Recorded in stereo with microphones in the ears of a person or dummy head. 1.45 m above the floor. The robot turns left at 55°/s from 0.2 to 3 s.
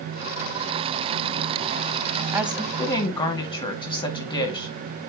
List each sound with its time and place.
2.3 s a woman speaking: 165° right, 2 m; by 4.7 s 155° left, 2 m